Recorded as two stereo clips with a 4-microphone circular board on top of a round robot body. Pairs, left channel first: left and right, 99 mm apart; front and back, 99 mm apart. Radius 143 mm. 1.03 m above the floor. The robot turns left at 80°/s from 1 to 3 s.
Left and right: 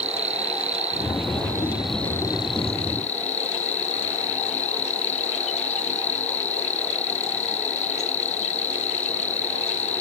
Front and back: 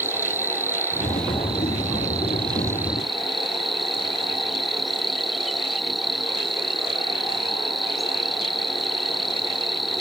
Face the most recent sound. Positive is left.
turn(degrees=90)